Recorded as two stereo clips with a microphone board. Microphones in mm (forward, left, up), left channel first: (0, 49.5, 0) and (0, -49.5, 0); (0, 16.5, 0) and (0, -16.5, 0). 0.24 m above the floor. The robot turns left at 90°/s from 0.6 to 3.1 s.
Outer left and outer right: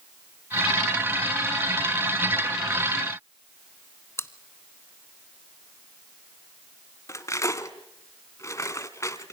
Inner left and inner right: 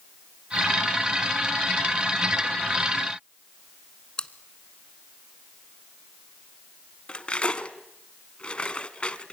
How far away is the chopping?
No chopping in this recording.